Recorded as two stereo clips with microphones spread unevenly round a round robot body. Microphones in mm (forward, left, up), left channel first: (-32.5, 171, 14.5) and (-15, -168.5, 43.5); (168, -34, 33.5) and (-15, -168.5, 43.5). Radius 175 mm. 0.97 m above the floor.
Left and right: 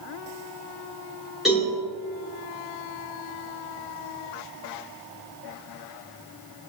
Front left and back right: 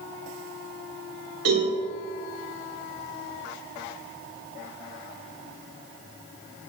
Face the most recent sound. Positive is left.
turn(degrees=-175)